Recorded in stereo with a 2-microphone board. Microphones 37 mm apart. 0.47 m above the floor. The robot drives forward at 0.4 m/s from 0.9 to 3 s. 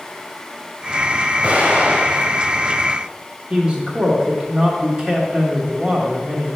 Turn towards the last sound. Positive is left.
turn(degrees=-25)  # may be behind; listen again after turning